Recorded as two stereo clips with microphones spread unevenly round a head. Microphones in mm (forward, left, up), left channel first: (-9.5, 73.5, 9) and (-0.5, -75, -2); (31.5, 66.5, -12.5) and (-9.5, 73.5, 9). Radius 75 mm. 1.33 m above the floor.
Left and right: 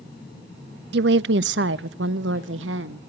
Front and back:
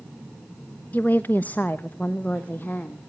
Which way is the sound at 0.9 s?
95° right.